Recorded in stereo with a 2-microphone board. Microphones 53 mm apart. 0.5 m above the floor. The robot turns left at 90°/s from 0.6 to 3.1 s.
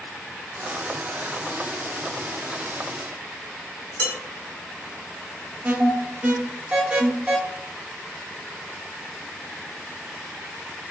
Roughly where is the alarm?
Right.